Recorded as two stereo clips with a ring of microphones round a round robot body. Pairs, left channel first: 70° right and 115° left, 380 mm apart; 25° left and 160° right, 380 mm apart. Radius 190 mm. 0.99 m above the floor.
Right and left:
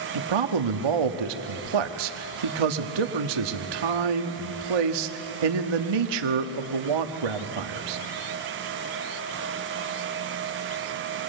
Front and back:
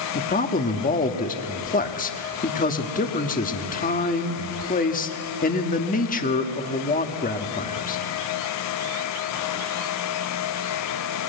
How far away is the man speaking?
About 1.5 m.